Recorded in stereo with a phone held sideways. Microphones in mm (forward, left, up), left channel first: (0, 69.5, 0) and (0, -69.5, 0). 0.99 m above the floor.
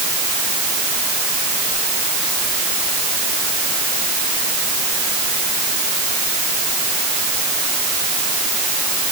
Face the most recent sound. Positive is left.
No sound to turn to.